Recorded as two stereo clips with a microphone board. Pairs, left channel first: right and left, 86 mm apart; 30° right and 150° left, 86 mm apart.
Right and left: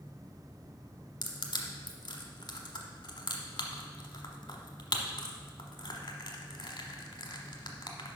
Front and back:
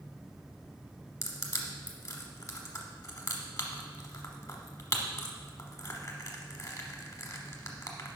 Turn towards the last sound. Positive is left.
turn(degrees=-70)